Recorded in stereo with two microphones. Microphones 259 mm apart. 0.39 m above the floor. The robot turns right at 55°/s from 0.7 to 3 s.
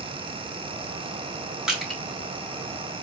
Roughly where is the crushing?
Centre.